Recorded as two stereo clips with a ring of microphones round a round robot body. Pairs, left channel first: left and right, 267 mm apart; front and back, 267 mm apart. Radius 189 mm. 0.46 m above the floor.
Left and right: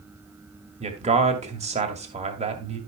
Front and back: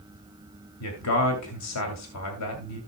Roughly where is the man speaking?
Ahead right.